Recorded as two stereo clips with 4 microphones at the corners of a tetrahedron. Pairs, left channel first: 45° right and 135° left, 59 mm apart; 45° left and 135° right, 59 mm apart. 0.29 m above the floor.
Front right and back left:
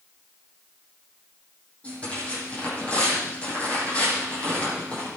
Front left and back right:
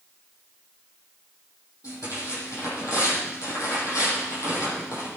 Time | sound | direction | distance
1.8 | tearing paper | 25° left | 9 m